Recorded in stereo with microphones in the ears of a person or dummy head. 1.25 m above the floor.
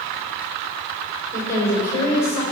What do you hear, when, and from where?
1.3 s a woman speaking: 15° left (ahead or behind), 4 m